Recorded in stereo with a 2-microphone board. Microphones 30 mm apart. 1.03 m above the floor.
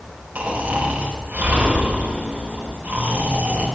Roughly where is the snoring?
Right.